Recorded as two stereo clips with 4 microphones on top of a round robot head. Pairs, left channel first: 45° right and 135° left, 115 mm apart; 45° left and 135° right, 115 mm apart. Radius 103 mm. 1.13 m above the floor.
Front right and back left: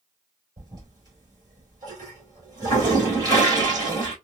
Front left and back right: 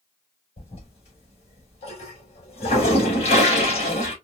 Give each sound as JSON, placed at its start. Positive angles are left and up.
{"t": 0.6, "sound": "a toilet flushing", "azimuth_deg": 80, "distance_m": 3.0}